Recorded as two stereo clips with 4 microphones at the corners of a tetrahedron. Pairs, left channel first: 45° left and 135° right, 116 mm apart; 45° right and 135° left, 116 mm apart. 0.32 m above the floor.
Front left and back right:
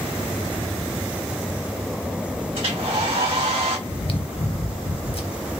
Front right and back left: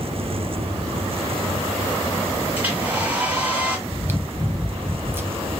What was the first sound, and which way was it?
A hair dryer, 155° right.